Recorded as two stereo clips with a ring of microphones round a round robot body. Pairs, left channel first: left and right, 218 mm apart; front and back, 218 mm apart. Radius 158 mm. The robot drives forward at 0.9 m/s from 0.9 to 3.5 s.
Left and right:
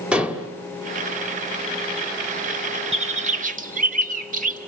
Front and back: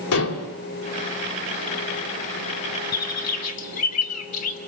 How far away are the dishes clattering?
About 3 m.